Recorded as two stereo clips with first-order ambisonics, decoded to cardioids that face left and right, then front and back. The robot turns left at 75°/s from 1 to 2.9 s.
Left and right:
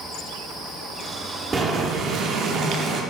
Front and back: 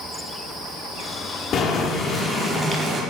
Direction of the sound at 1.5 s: 30° right.